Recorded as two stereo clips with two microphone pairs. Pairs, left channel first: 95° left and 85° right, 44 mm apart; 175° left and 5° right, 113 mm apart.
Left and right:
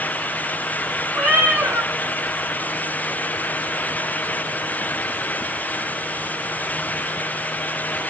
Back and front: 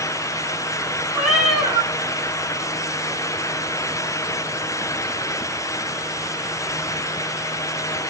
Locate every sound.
1.1 s a cat meowing: 90° right, 4 m